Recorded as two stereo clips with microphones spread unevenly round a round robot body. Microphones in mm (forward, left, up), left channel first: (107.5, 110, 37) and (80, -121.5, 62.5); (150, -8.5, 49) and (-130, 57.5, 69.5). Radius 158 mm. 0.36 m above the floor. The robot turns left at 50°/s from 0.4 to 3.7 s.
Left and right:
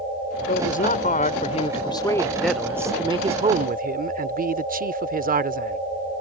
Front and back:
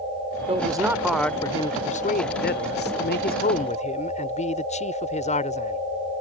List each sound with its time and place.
0.5 s a man speaking: 100° left; by 5.8 s 60° right